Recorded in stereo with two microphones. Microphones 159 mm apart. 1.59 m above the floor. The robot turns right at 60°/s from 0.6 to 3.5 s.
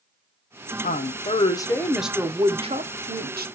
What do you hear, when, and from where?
0.8 s a woman speaking: 110° left, 0.7 m; by 3.5 s 90° right, 0.7 m